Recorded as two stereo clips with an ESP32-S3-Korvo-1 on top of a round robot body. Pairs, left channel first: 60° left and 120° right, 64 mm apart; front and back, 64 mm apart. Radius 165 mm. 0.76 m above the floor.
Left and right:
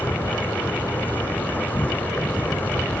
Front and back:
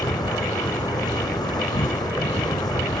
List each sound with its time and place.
0.0 s an insect: 5° right